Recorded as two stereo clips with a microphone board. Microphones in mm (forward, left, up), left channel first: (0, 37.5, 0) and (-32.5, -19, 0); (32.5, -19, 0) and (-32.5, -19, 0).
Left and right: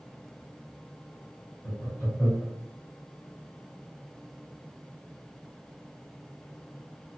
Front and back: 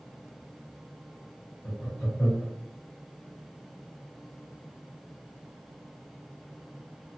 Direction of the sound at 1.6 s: 20° left.